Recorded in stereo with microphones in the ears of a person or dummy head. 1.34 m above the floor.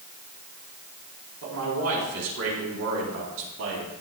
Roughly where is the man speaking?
Right.